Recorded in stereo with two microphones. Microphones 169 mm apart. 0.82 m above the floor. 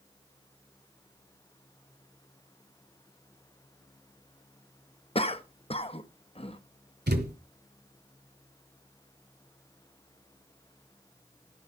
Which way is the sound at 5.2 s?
35° left (ahead or behind).